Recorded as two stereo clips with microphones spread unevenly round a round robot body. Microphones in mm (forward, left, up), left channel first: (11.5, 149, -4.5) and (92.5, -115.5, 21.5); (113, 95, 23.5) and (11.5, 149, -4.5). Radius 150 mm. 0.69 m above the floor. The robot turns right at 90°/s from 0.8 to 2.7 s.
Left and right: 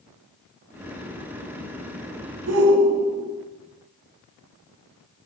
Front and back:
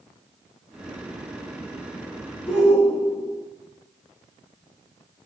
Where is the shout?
125° right, 4.5 m; by 3.3 s 105° right, 4.5 m.